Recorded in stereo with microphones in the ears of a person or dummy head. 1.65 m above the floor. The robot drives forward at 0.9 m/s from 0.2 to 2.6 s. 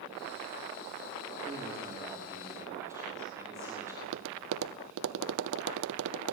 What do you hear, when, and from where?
1.4 s a man speaking: 15° right (ahead or behind), 4.5 m
4.0 s tapping: 70° right (ahead or behind), 0.9 m